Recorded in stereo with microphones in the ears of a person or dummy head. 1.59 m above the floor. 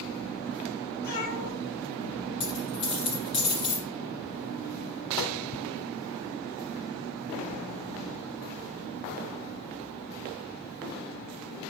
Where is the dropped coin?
30° left (ahead or behind), 2 m.